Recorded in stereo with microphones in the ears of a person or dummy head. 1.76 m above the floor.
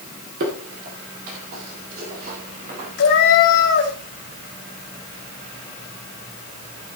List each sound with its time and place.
0.4 s footsteps: 45° right (ahead or behind), 2.5 m; by 2.9 s 55° right (ahead or behind), 4 m
3.0 s a cat meowing: 55° left (ahead or behind), 2.5 m